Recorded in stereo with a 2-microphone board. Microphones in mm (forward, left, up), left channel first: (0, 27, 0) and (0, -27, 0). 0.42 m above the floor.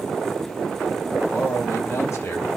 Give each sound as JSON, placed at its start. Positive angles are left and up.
{"t": 1.3, "sound": "a man speaking", "side_deg": 55, "distance_m": 2.0}